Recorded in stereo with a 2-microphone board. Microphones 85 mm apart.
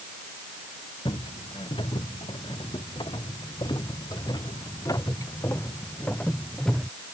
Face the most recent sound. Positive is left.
turn(degrees=5)  # may be behind; listen again after turning